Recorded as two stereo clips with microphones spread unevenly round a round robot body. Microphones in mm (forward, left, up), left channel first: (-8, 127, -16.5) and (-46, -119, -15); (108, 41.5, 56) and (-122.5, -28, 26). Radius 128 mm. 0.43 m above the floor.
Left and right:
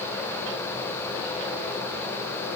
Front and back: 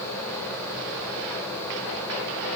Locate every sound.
Only background noise.